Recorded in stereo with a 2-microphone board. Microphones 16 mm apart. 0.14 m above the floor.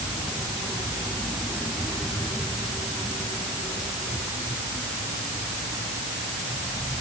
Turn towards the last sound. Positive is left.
No sound to turn to.